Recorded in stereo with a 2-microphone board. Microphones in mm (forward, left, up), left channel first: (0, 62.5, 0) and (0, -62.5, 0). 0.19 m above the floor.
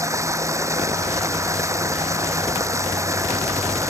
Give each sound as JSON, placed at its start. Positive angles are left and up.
{"t": 0.0, "sound": "running water", "side_deg": -25}